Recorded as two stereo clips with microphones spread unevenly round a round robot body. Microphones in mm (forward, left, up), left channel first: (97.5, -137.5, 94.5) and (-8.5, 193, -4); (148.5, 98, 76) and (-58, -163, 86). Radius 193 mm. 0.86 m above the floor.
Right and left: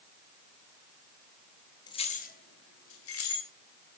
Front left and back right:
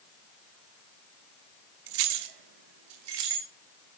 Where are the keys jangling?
155° right, 0.7 m; by 3.5 s 125° right, 1.6 m.